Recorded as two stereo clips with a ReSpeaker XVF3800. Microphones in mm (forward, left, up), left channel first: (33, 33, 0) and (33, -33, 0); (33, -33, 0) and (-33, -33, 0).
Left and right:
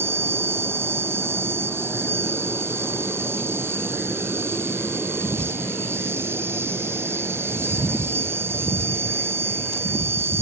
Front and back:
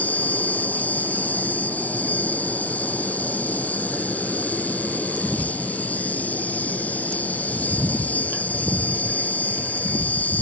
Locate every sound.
0.0 s an insect: 55° right